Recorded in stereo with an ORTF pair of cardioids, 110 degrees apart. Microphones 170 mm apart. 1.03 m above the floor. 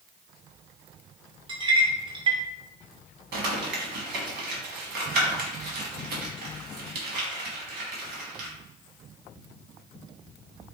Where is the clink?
30° right, 0.6 m.